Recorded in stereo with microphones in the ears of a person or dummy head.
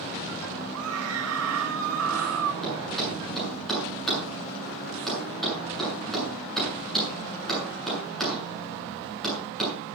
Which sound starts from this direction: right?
A scream, at 0.7 s.